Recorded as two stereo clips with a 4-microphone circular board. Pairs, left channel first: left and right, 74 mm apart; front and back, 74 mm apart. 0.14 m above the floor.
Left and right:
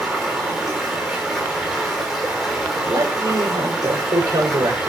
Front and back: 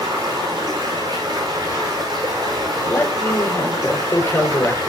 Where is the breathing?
I don't hear breathing.